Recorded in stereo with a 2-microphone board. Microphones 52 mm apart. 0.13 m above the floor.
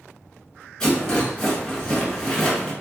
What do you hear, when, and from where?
0.8 s a rattle: 10° left (ahead or behind), 1.6 m